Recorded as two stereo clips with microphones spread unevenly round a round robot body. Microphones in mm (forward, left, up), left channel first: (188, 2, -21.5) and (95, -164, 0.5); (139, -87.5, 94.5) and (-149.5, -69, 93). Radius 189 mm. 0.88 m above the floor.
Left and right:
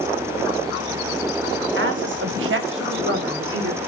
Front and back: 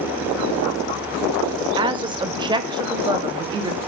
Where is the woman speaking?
110° right, 1.9 m.